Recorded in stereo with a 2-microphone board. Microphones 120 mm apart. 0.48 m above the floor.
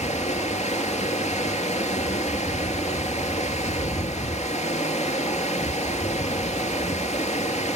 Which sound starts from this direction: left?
Running water, at 0.0 s.